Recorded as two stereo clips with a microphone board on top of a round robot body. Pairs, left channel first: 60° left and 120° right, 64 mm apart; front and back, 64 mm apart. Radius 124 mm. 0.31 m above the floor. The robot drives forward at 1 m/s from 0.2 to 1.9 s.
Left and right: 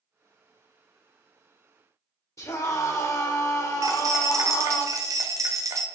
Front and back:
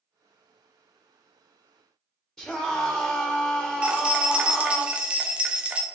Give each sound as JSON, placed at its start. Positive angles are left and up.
{"t": 2.4, "sound": "a scream", "azimuth_deg": 85, "distance_m": 2.0}
{"t": 3.8, "sound": "keys jangling", "azimuth_deg": -110, "distance_m": 1.3}